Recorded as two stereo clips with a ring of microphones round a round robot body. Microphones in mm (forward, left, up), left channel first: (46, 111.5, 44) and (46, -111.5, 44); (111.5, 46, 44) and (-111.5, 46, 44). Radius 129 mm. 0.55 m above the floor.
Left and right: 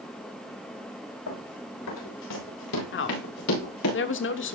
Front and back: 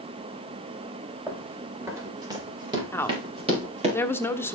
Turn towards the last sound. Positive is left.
turn(degrees=80)